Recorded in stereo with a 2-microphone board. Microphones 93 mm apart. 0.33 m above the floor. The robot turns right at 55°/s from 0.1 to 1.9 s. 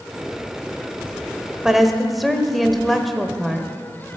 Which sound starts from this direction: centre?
A woman speaking, at 1.6 s.